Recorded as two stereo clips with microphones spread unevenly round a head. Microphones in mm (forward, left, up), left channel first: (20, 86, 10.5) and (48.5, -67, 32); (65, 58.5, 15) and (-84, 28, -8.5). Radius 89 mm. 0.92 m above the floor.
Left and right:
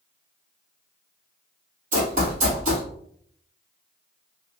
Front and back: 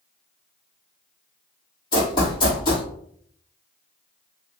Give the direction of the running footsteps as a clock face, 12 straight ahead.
2 o'clock.